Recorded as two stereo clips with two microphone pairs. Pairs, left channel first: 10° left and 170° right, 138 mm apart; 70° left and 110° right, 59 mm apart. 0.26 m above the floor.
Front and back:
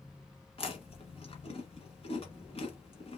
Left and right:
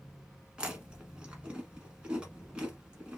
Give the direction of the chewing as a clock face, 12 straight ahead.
1 o'clock.